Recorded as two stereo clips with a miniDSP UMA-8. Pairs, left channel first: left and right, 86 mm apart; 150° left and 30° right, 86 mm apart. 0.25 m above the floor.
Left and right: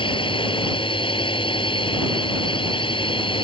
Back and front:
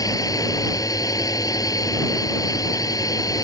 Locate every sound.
0.0 s a drone: 105° left